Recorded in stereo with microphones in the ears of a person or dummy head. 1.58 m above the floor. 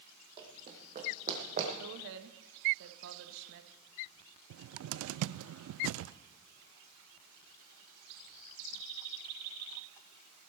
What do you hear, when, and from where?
0.4 s running footsteps: 30° right (ahead or behind), 4 m; by 1.7 s 45° right (ahead or behind), 4 m
1.8 s a woman speaking: 70° right (ahead or behind), 1.6 m
4.5 s a cupboard door: 75° right (ahead or behind), 0.5 m